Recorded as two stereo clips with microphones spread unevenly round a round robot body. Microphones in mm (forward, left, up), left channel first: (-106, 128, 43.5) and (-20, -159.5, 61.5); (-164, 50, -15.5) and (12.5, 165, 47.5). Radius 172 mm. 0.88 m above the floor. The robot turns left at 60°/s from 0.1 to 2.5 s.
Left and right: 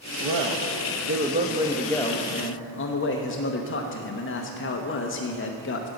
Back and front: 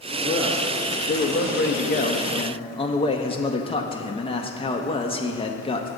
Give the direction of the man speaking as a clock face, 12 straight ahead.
2 o'clock.